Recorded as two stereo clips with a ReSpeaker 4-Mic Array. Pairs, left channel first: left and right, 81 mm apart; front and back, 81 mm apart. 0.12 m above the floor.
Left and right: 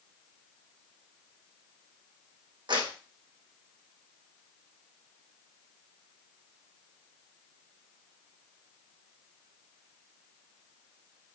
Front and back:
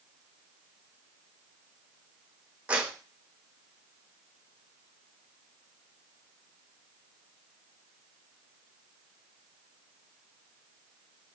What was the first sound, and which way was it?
A clap, 105° right.